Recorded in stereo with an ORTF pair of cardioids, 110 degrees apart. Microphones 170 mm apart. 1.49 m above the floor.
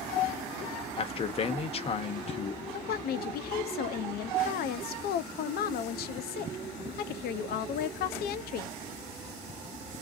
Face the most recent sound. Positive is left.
turn(degrees=65)